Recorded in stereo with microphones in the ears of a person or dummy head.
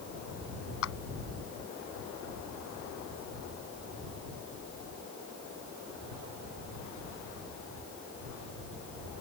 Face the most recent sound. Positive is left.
turn(degrees=70)  # may be behind; listen again after turning